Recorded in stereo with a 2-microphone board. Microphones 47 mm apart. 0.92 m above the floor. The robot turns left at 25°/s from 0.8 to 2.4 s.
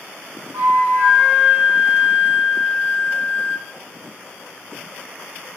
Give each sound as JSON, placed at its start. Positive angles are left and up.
{"t": 0.5, "sound": "a flute", "azimuth_deg": -115, "distance_m": 1.9}